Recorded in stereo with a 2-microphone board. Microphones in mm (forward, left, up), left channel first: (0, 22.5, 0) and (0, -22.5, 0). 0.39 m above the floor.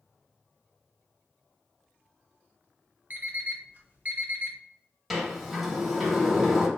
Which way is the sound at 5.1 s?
5° right (ahead or behind).